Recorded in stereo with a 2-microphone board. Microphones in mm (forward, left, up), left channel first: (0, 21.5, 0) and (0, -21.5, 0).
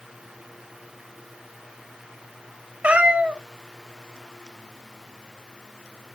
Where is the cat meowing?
25° right (ahead or behind), 0.5 m.